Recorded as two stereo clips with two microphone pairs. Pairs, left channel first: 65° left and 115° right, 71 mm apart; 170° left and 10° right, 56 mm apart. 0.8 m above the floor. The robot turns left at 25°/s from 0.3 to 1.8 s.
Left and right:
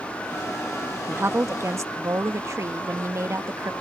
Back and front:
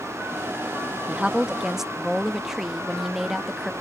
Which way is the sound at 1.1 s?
75° right.